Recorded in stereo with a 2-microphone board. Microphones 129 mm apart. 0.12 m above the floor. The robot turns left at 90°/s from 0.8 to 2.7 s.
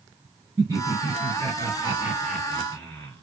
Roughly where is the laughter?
Right.